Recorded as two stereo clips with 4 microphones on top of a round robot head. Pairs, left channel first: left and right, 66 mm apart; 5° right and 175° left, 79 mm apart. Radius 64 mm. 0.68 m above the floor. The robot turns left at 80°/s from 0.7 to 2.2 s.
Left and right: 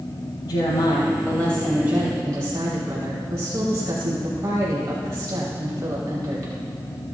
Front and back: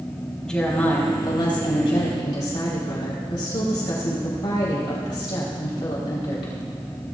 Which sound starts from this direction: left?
A woman speaking, at 0.4 s.